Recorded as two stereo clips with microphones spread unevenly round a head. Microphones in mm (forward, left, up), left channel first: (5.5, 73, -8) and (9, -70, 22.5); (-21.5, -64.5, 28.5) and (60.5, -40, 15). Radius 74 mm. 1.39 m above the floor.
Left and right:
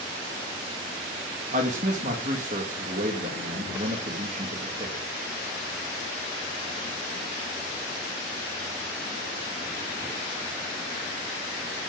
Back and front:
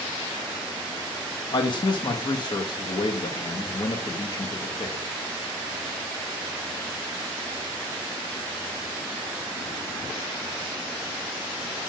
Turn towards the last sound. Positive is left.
turn(degrees=-130)